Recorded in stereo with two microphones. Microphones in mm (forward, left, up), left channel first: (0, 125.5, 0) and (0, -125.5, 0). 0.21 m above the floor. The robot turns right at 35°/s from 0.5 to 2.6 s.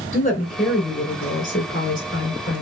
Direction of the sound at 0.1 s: 35° left.